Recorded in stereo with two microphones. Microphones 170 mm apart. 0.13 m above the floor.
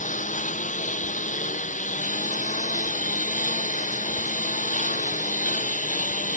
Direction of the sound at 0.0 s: 45° left (ahead or behind).